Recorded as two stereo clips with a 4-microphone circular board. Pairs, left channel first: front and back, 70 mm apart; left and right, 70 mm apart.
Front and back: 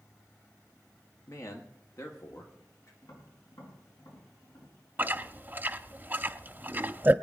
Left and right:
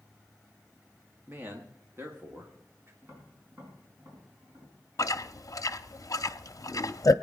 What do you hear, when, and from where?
1.3 s a man speaking: 35° right, 1.3 m
3.0 s tapping: 30° right, 5 m
5.0 s chewing: 120° left, 0.5 m